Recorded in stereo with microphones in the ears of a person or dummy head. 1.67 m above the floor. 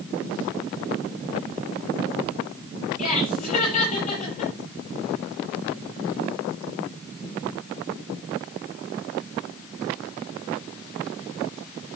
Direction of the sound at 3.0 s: 45° left (ahead or behind).